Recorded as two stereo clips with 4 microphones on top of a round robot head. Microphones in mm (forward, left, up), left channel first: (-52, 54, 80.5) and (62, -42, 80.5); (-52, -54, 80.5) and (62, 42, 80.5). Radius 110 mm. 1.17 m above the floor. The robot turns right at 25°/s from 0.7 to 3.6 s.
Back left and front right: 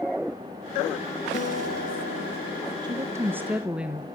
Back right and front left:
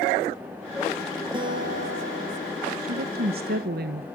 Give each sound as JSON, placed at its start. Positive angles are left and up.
{"t": 1.3, "sound": "a guitar", "azimuth_deg": 100, "distance_m": 5.5}
{"t": 2.8, "sound": "a woman speaking", "azimuth_deg": 25, "distance_m": 1.3}